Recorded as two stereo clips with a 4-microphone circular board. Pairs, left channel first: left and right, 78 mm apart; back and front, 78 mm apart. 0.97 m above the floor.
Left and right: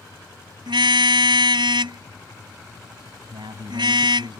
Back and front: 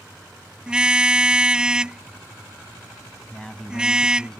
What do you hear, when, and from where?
0.7 s a car horn: 80° right
3.3 s a man speaking: 100° right